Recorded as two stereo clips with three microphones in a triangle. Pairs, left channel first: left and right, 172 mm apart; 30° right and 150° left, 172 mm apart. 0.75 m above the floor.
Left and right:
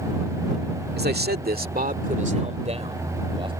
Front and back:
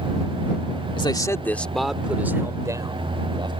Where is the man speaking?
90° right; by 3.5 s 145° right.